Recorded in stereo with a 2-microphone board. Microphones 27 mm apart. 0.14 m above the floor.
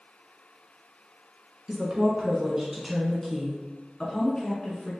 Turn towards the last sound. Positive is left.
turn(degrees=45)  # may be behind; listen again after turning